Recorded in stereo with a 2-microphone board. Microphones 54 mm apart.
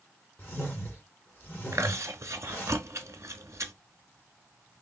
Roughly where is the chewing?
Right.